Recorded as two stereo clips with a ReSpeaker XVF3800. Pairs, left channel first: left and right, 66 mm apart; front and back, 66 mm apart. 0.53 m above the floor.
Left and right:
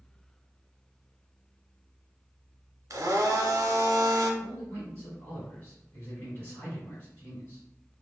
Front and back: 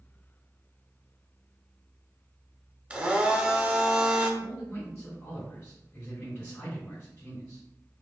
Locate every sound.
2.9 s a blender: 110° right, 0.7 m
4.4 s a man speaking: 40° left, 1.7 m